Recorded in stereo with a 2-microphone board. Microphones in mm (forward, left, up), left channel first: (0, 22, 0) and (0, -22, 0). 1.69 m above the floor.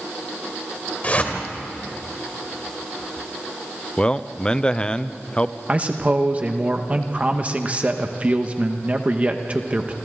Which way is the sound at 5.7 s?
30° right (ahead or behind).